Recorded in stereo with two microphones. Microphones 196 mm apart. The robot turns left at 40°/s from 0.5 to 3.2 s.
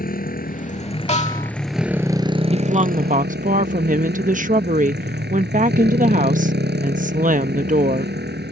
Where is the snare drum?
35° left (ahead or behind); by 1.5 s 45° left (ahead or behind).